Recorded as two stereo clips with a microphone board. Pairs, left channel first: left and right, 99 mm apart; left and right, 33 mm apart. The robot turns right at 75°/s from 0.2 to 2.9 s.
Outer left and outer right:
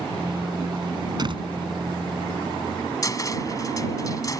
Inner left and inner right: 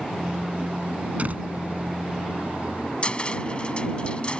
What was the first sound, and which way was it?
A door slam, 45° right (ahead or behind).